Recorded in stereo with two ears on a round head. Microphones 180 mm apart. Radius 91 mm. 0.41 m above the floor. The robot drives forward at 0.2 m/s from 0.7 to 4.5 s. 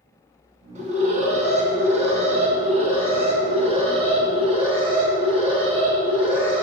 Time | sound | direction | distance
0.8 | an alarm | 40° right (ahead or behind) | 2.5 m